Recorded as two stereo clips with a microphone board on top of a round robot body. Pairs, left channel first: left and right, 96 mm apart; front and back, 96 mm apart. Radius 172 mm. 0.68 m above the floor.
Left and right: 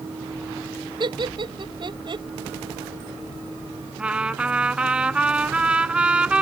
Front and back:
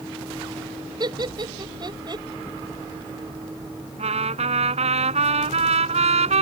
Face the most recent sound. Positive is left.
turn(degrees=-170)